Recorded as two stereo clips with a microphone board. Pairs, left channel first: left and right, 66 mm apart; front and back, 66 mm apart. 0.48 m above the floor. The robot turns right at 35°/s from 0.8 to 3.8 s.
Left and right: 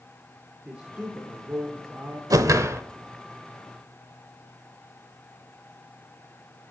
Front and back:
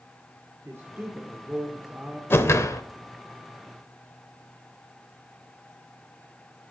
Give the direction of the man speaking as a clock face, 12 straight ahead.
5 o'clock.